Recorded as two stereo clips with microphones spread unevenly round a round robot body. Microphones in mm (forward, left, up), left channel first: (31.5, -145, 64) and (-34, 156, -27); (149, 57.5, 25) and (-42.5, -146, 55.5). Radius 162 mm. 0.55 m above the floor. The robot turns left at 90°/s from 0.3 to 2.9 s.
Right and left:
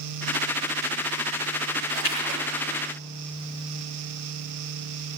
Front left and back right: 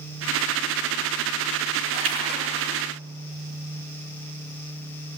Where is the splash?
130° right, 5.5 m; by 2.4 s 175° right, 5.5 m.